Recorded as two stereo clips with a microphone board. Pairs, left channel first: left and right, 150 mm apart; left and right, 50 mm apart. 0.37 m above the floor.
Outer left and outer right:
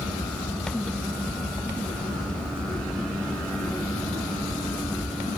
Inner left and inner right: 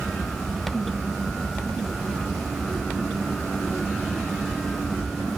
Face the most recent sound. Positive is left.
No sound to turn to.